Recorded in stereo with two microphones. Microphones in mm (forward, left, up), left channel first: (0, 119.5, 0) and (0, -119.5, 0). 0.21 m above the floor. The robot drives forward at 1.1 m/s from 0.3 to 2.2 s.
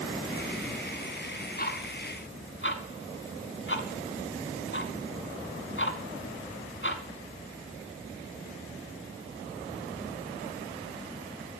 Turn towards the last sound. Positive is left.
turn(degrees=55)  # may be behind; listen again after turning